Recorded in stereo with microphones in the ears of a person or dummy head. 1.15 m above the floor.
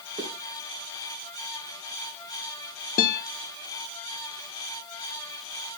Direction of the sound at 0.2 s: 20° right (ahead or behind).